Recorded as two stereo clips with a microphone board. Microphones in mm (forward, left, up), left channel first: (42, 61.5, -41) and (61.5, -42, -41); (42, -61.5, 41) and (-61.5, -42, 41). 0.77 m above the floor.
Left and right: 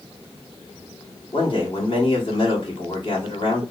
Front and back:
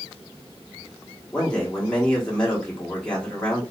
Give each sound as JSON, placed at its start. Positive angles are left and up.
{"t": 1.3, "sound": "a man speaking", "azimuth_deg": 70, "distance_m": 1.6}